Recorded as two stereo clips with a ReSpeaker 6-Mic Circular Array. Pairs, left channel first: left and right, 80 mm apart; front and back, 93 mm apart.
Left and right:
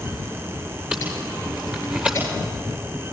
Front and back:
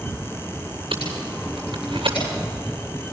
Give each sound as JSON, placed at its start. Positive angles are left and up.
{"t": 0.9, "sound": "tape being pulled", "azimuth_deg": -160, "distance_m": 8.0}